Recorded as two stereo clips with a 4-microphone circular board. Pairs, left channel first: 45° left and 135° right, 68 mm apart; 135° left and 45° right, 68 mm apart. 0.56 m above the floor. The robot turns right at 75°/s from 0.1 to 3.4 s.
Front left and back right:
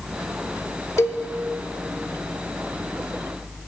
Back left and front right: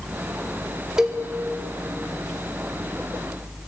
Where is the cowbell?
35° left, 1.6 m; by 1.2 s 55° left, 1.6 m.